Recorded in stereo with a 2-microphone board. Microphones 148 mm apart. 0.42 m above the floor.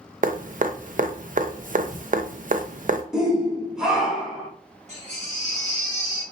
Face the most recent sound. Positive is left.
turn(degrees=-50)  # may be behind; listen again after turning